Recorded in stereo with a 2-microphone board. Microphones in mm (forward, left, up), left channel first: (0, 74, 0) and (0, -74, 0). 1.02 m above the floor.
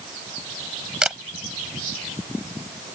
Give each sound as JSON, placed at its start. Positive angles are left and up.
{"t": 1.0, "sound": "a camera shutter", "side_deg": -5}